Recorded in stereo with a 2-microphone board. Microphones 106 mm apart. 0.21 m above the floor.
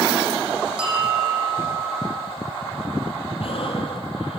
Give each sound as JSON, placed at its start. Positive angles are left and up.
{"t": 0.8, "sound": "a bell", "side_deg": -10, "distance_m": 6.0}
{"t": 3.4, "sound": "breathing", "side_deg": 60, "distance_m": 5.0}